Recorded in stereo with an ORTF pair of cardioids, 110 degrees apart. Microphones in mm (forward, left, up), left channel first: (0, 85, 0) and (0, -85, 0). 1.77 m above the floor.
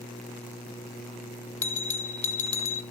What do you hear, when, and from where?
1.6 s a bell: 45° left, 1.2 m